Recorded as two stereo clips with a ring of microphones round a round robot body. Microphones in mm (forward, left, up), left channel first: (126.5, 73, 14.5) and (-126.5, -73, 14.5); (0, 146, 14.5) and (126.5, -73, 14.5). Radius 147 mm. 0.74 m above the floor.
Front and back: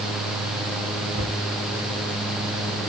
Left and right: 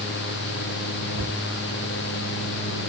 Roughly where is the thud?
Right.